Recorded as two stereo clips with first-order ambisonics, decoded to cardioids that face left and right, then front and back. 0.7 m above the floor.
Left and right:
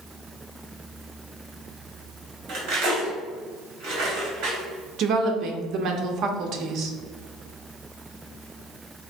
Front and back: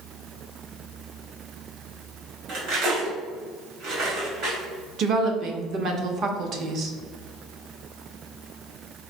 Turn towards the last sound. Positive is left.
turn(degrees=-130)